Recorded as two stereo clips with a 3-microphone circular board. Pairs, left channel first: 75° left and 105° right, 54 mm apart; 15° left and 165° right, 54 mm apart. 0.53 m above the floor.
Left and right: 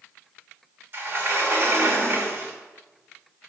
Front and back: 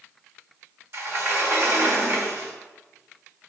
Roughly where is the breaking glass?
No breaking glass in this recording.